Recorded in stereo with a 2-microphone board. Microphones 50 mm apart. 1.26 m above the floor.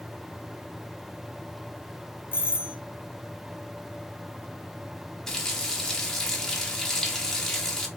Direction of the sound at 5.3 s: 10° left (ahead or behind).